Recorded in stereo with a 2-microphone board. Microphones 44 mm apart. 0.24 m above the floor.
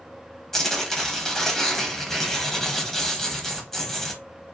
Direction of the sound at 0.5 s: 10° left (ahead or behind).